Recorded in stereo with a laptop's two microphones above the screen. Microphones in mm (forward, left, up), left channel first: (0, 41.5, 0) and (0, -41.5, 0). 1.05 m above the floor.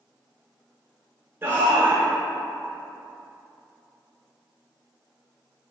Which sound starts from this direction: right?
A shout, at 1.4 s.